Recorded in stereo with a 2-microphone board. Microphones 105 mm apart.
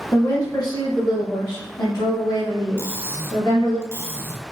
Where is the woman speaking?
30° left (ahead or behind), 1.0 m; by 3.8 s 50° left (ahead or behind), 2.5 m.